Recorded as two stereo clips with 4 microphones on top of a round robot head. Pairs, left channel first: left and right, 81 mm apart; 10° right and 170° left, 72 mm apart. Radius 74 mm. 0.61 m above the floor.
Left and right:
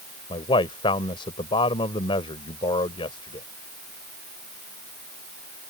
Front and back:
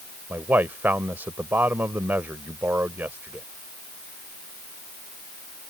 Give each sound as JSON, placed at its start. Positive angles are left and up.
{"t": 0.3, "sound": "a man speaking", "azimuth_deg": 105}